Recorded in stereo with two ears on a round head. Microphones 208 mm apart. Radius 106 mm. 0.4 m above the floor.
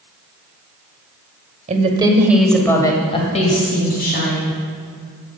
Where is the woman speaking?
35° right (ahead or behind), 1.5 m; by 4.6 s 45° left (ahead or behind), 3.5 m.